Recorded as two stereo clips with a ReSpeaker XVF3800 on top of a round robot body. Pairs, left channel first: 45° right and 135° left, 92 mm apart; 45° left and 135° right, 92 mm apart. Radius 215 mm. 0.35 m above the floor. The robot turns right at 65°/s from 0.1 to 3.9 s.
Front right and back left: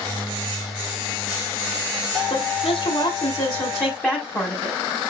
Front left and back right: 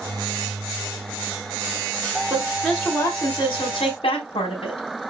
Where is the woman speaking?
75° right, 4 m; by 4.8 s 30° left, 4 m.